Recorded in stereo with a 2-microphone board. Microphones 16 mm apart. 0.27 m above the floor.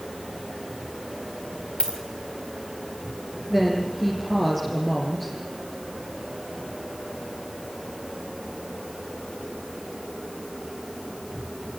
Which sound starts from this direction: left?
A dropped coin, at 1.8 s.